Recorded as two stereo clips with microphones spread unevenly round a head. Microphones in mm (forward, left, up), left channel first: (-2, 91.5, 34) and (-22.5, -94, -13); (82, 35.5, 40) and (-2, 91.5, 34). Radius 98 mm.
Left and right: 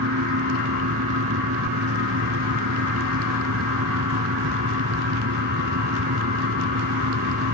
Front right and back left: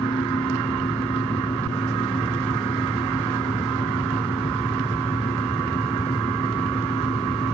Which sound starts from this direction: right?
A fan, at 0.0 s.